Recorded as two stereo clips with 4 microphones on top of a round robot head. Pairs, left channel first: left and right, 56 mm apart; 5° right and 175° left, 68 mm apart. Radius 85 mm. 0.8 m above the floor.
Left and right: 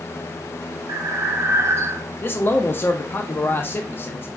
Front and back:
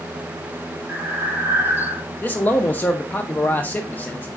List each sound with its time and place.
0.9 s breathing: 120° right, 0.7 m
2.2 s a man speaking: 55° left, 0.5 m